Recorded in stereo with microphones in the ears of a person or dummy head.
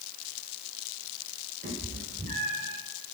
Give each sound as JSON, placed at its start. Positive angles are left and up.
{"t": 1.6, "sound": "a cat meowing", "side_deg": -50, "distance_m": 6.5}